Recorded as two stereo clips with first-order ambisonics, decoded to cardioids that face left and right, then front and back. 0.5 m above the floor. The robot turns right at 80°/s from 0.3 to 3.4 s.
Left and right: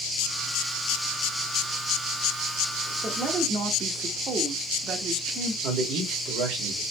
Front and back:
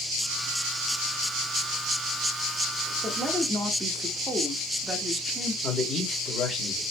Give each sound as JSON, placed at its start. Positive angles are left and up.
{"t": 3.0, "sound": "a woman speaking", "azimuth_deg": -125, "distance_m": 0.7}
{"t": 5.6, "sound": "a man speaking", "azimuth_deg": -65, "distance_m": 1.6}